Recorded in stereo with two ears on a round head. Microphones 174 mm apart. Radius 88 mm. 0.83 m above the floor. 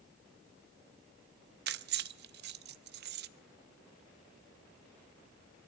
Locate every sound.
1.7 s keys jangling: 55° right (ahead or behind), 0.6 m